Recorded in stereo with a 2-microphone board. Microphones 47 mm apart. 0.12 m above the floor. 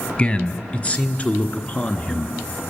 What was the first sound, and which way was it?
A man speaking, 25° left (ahead or behind).